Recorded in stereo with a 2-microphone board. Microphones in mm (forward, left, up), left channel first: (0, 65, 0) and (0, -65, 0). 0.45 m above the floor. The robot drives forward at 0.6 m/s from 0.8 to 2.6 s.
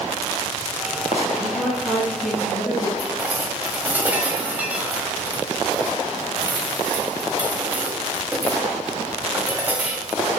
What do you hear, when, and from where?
1.4 s a woman speaking: centre (ahead or behind), 4 m
3.0 s dishes clattering: 10° right (ahead or behind), 1.5 m